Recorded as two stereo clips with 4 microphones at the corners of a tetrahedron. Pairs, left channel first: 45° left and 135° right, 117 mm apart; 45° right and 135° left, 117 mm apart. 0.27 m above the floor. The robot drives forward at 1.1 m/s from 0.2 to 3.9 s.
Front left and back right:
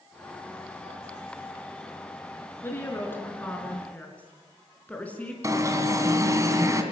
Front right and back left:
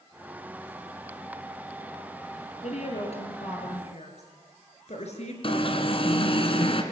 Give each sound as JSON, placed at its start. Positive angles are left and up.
{"t": 2.6, "sound": "a woman speaking", "azimuth_deg": -25, "distance_m": 5.5}
{"t": 5.4, "sound": "an alarm", "azimuth_deg": -75, "distance_m": 2.0}